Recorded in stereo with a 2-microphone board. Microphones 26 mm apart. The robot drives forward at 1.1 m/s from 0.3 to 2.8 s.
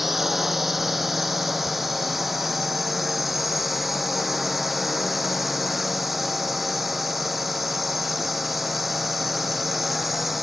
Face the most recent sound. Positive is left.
turn(degrees=-5)  # may be behind; listen again after turning